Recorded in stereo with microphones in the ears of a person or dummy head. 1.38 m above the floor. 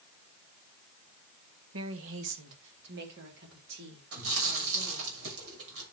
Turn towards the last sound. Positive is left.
turn(degrees=-70)  # may be behind; listen again after turning